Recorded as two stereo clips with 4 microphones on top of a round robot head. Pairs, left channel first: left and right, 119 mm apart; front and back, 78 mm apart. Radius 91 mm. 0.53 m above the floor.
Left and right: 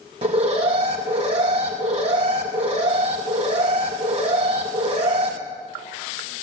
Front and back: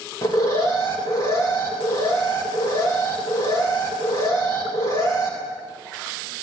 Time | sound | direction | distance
0.2 | an alarm | 50° right | 4 m